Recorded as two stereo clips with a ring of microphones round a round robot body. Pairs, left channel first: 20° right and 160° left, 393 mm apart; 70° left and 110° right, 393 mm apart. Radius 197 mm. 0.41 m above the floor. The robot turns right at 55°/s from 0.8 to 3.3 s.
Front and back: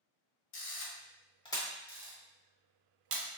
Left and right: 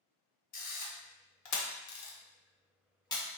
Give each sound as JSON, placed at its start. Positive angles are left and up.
{"t": 0.5, "sound": "a camera shutter", "azimuth_deg": 15, "distance_m": 0.6}